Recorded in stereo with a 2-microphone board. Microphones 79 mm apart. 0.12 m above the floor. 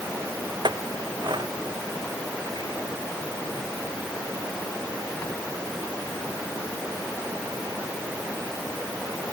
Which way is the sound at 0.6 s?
75° right (ahead or behind).